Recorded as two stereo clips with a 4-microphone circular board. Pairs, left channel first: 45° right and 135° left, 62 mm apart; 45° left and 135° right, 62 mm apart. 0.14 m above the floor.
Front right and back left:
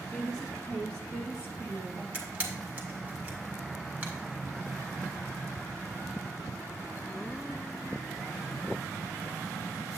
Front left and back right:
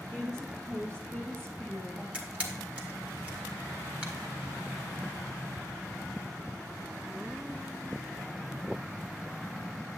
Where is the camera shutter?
175° left, 1.7 m.